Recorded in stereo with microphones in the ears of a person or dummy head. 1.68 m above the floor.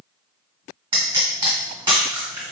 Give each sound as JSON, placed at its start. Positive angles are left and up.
{"t": 0.9, "sound": "a pop", "side_deg": -25, "distance_m": 1.4}